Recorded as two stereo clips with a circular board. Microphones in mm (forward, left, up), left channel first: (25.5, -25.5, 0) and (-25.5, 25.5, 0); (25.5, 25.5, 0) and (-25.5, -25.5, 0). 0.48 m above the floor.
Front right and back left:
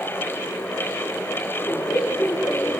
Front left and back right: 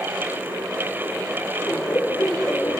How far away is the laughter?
About 1.9 m.